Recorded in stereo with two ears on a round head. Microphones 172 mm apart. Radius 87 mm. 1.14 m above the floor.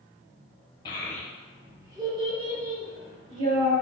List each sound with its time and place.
0.8 s a child speaking: 25° left (ahead or behind), 0.6 m; by 3.7 s 45° right (ahead or behind), 1.7 m